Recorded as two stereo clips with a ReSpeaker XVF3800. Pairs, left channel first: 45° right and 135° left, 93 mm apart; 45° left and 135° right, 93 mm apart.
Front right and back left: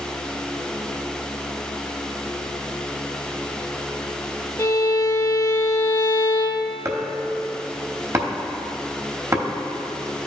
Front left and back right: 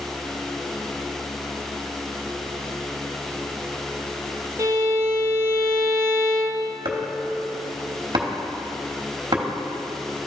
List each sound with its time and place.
4.6 s a violin: 90° right, 0.7 m
6.8 s chopping: 170° right, 0.9 m